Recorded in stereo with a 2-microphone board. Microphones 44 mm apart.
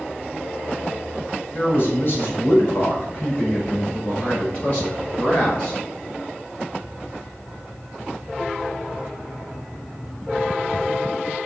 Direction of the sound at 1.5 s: 50° left (ahead or behind).